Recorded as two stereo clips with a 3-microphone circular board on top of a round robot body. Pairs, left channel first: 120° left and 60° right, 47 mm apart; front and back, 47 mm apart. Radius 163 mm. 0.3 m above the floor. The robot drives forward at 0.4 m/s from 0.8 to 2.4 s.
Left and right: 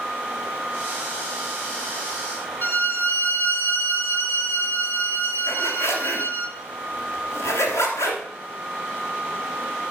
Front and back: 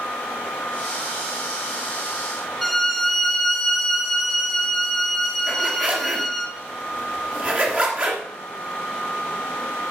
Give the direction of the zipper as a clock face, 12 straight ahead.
8 o'clock.